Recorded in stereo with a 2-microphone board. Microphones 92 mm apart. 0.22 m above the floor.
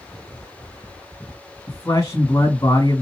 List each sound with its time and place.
1.7 s a man speaking: 35° left (ahead or behind), 2 m